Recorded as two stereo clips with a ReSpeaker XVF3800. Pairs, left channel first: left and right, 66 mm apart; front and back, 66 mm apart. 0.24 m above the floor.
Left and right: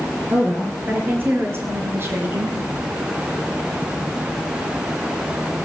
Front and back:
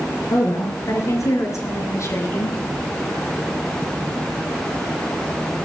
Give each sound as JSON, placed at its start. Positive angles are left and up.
{"t": 0.3, "sound": "a woman speaking", "azimuth_deg": -30, "distance_m": 4.5}